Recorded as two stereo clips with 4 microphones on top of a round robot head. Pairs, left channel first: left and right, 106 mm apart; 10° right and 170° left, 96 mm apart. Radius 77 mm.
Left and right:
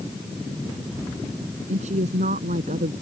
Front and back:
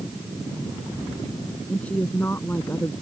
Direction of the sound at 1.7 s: 90° right.